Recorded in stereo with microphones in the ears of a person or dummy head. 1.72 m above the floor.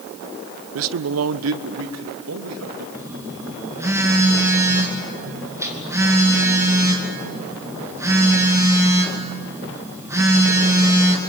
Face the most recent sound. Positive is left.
turn(degrees=-10)  # may be behind; listen again after turning